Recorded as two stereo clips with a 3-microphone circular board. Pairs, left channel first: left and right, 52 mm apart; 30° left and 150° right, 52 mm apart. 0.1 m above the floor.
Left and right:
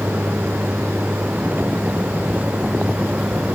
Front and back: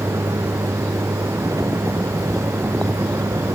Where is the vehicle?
150° right; by 3.5 s 155° right.